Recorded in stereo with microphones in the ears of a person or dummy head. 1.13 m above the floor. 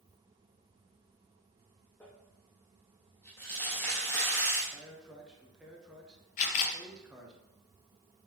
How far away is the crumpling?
About 1.2 m.